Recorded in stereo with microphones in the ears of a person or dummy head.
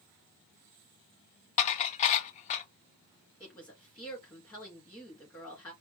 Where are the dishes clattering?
40° left (ahead or behind), 0.6 m.